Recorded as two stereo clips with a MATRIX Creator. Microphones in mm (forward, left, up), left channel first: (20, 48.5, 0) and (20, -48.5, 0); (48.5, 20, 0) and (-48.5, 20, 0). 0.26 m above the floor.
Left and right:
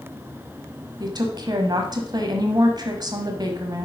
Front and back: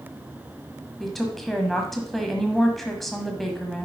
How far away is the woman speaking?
About 1.2 m.